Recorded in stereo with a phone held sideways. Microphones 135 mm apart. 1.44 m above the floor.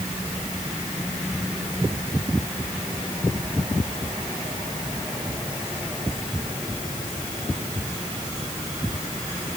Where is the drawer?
I don't hear a drawer.